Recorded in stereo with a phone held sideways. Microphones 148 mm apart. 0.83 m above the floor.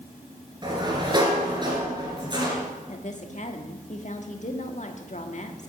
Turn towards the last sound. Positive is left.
turn(degrees=55)  # may be behind; listen again after turning